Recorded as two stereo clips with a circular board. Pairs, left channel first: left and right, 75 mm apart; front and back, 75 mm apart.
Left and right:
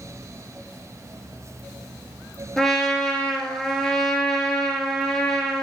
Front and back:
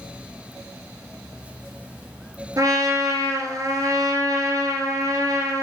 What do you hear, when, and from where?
2.6 s a trumpet: 170° left, 1.1 m